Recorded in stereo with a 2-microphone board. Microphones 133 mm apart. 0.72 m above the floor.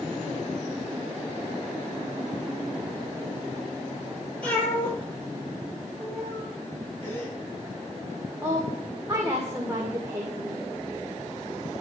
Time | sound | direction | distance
4.4 | a cat meowing | 10° left (ahead or behind) | 9 m
7.0 | a gasp | 15° left (ahead or behind) | 7.5 m
8.4 | a woman speaking | 25° right (ahead or behind) | 2 m